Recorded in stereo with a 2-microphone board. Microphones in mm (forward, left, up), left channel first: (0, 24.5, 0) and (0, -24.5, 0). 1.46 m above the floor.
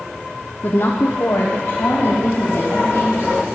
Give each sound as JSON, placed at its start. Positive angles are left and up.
{"t": 0.6, "sound": "a woman speaking", "side_deg": 45, "distance_m": 0.7}